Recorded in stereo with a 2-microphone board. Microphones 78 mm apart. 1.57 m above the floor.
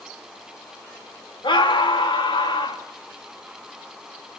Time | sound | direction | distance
1.4 | a scream | 85° left | 3.5 m